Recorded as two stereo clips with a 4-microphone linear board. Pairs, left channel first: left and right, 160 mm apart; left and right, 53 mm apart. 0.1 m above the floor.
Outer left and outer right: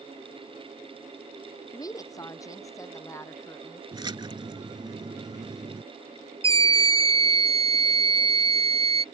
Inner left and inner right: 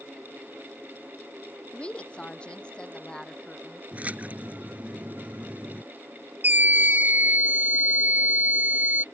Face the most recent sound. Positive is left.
turn(degrees=-35)  # may be behind; listen again after turning